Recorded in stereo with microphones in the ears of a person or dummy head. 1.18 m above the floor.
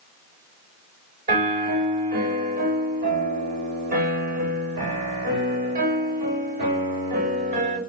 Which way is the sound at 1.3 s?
50° right (ahead or behind).